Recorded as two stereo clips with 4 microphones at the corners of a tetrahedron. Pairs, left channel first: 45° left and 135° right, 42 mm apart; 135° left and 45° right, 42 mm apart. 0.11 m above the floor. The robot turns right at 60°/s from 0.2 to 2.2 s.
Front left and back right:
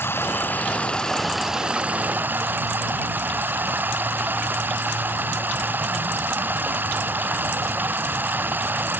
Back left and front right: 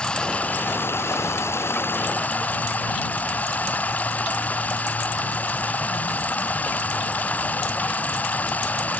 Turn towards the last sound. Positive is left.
turn(degrees=-175)